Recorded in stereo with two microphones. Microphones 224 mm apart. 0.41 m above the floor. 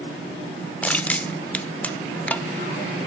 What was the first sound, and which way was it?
Crushing, 5° left (ahead or behind).